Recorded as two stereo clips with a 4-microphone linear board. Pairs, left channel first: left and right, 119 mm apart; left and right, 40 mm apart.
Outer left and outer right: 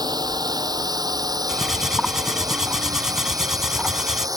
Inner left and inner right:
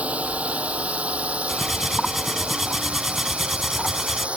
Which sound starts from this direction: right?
A drone, at 0.0 s.